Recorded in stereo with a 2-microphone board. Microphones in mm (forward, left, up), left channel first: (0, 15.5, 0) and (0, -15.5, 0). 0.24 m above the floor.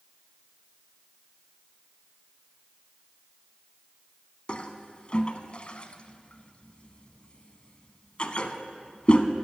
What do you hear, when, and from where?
4.5 s a toilet flushing: 40° left (ahead or behind), 0.7 m